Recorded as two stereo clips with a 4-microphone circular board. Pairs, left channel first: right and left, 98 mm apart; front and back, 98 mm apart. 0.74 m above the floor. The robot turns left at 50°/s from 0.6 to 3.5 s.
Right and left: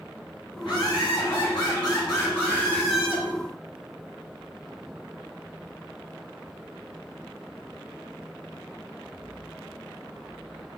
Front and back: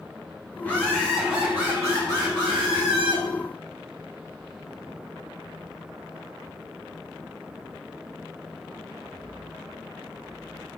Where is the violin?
I don't hear a violin.